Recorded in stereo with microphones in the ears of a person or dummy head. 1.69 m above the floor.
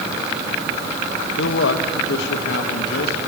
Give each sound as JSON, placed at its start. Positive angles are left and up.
{"t": 1.4, "sound": "a man speaking", "side_deg": 75, "distance_m": 2.0}